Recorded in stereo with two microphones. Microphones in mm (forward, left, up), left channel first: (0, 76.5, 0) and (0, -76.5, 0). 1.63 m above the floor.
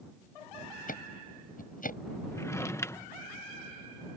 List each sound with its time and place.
0.9 s ticking: 65° left (ahead or behind)
2.3 s a drawer: 20° left (ahead or behind)